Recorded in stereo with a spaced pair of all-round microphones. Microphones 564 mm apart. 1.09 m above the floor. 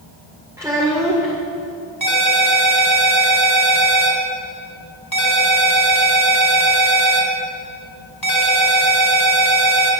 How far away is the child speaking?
About 2 m.